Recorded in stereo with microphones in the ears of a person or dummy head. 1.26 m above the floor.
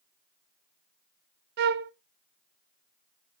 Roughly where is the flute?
Right.